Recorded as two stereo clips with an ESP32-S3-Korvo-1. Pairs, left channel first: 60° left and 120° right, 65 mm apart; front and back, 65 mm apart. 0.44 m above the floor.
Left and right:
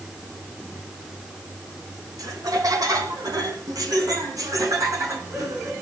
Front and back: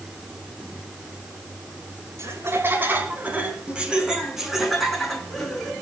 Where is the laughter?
135° right, 4 m; by 5.7 s 80° right, 6 m.